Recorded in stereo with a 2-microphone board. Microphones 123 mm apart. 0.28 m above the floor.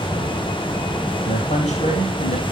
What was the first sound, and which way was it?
A man speaking, 80° left.